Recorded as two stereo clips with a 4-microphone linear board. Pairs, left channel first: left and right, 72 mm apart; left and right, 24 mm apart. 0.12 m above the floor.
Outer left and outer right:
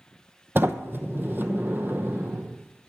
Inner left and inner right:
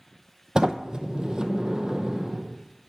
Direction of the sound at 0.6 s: 30° right (ahead or behind).